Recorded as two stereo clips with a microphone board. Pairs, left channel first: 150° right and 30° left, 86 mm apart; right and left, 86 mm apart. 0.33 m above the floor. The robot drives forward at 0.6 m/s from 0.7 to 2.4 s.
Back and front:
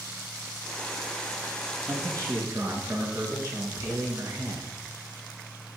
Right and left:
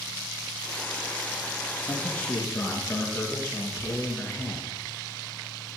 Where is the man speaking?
20° right, 4.5 m; by 4.7 s 25° right, 4 m.